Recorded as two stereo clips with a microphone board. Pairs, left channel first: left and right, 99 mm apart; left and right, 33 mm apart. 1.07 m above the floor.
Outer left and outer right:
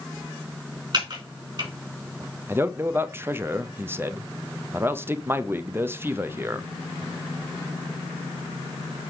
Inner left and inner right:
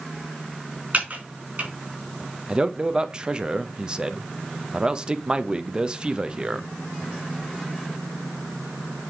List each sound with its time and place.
0.9 s typing on a keyboard: 50° right (ahead or behind), 3.5 m
2.5 s a man speaking: 25° right (ahead or behind), 0.7 m